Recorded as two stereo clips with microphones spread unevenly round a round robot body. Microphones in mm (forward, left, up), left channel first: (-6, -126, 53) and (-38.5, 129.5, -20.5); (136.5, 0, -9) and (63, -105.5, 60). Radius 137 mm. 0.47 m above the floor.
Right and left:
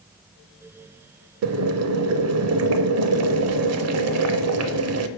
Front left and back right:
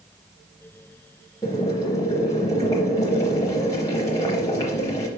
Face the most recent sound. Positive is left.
turn(degrees=130)